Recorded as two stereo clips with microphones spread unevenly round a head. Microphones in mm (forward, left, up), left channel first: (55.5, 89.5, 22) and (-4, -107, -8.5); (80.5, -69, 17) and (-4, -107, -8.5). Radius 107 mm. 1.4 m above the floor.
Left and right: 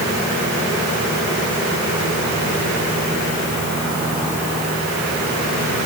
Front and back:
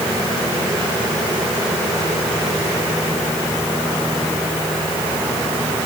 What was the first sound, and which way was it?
Only background noise.